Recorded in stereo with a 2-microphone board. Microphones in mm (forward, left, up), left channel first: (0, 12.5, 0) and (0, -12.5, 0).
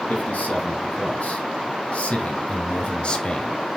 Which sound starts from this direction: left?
A man speaking, at 0.1 s.